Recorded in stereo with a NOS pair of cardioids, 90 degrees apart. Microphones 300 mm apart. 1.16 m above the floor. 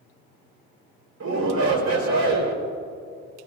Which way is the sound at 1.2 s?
60° right.